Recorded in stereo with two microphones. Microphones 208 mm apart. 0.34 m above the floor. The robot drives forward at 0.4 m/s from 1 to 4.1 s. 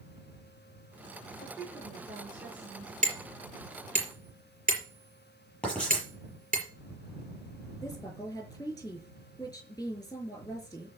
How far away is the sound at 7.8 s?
About 5.5 m.